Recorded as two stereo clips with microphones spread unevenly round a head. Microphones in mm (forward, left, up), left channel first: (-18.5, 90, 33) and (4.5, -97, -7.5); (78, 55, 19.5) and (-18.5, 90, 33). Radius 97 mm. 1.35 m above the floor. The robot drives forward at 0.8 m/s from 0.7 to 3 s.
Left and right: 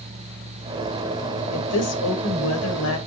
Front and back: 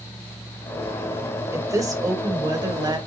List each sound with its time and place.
1.5 s a woman speaking: 100° left, 5.5 m; by 3.0 s 110° left, 6 m